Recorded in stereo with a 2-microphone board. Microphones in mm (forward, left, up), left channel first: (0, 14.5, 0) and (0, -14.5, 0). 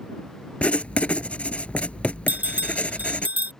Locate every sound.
0.6 s writing: 50° left (ahead or behind)
2.3 s a bell: 65° right (ahead or behind)